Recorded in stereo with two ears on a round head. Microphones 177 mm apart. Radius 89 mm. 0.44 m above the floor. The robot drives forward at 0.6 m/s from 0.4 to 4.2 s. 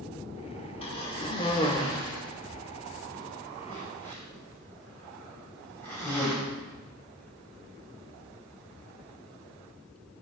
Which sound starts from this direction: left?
A cough, at 0.8 s.